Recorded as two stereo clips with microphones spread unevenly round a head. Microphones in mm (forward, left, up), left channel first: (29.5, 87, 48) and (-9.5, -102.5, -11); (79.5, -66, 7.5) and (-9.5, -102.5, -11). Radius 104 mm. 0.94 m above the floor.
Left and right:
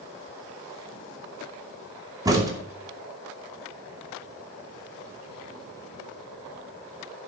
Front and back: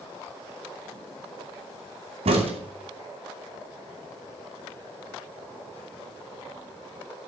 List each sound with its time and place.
2.2 s a crack: 170° right, 2.5 m